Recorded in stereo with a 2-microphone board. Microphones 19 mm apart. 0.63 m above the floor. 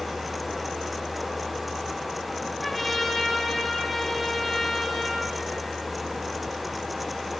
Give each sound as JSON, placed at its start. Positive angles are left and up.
{"t": 2.6, "sound": "a trumpet", "side_deg": 0, "distance_m": 2.5}